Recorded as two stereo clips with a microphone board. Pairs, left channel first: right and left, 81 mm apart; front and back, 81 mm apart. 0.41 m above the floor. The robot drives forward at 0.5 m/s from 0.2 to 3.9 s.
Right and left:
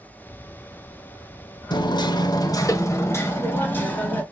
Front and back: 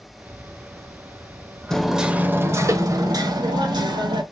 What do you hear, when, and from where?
1.7 s hammering: 80° right, 0.5 m; by 4.2 s 155° right, 1.1 m